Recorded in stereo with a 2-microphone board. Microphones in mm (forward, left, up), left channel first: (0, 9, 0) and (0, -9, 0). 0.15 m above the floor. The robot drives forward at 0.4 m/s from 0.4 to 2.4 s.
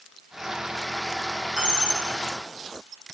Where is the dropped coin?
65° right (ahead or behind), 3.5 m; by 2.1 s 60° right (ahead or behind), 3.5 m.